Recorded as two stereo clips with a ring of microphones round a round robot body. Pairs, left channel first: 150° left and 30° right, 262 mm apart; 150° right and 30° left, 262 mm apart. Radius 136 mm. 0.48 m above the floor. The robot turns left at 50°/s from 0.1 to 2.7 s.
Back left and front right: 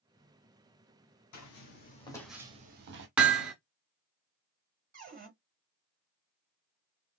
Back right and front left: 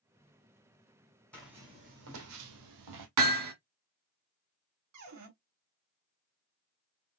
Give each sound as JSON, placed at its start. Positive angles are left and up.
{"t": 1.3, "sound": "footsteps", "azimuth_deg": 125, "distance_m": 2.0}
{"t": 3.2, "sound": "hammering", "azimuth_deg": 55, "distance_m": 1.4}
{"t": 4.9, "sound": "a cupboard door", "azimuth_deg": 25, "distance_m": 3.0}